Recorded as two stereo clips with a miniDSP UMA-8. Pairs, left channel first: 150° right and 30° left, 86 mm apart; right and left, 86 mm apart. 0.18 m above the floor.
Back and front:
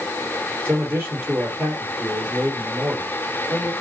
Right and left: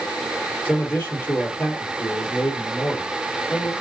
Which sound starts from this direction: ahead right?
A man speaking, at 0.7 s.